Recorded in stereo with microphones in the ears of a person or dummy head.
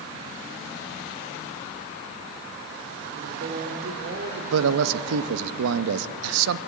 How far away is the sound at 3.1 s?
About 4 m.